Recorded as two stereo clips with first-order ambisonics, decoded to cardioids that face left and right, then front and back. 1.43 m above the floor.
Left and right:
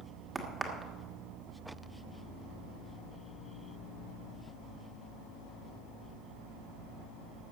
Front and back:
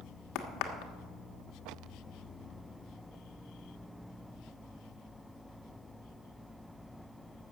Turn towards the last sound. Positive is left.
turn(degrees=-15)